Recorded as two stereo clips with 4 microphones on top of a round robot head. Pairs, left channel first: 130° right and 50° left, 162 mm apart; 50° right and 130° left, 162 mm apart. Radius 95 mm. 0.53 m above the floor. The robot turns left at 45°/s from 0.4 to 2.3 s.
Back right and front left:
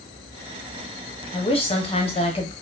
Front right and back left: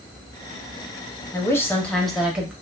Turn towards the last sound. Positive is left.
turn(degrees=-150)